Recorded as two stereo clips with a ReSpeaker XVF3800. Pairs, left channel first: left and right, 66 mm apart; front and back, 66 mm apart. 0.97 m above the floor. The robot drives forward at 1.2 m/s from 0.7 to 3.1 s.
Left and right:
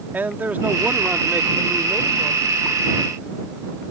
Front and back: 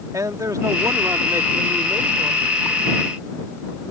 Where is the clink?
No clink in this recording.